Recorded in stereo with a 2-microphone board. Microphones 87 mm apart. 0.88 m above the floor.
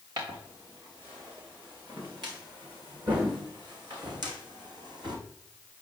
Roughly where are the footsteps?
Right.